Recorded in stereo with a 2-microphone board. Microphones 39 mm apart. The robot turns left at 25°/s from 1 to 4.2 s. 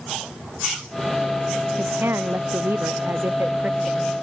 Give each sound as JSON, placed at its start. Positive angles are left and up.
{"t": 1.8, "sound": "a woman speaking", "azimuth_deg": -80}